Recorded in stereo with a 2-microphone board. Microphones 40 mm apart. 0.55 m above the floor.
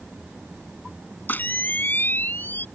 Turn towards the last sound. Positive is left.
turn(degrees=45)  # may be behind; listen again after turning